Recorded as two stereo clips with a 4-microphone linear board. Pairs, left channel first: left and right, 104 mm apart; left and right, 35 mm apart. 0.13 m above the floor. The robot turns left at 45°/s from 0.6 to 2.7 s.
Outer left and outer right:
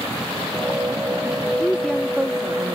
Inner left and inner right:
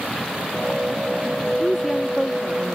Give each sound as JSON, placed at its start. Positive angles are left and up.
{"t": 1.6, "sound": "a woman speaking", "azimuth_deg": 15}